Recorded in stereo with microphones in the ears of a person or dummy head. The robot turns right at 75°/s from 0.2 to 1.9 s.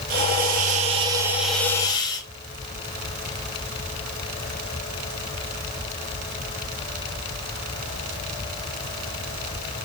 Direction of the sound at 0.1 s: 100° right.